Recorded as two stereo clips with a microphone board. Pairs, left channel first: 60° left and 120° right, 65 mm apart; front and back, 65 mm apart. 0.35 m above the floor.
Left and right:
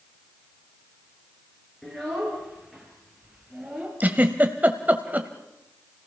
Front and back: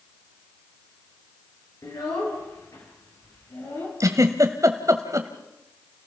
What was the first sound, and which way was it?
A child speaking, 25° right.